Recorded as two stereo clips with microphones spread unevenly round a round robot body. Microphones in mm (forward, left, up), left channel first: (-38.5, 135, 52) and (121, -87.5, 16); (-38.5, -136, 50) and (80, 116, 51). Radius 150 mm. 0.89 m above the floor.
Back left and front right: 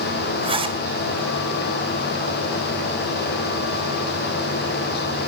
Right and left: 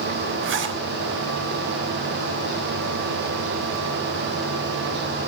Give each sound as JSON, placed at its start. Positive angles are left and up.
{"t": 0.4, "sound": "a zipper", "azimuth_deg": 15, "distance_m": 3.5}